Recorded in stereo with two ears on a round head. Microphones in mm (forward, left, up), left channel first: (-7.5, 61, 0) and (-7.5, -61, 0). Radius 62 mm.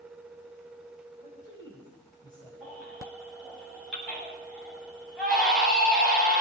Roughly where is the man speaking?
Left.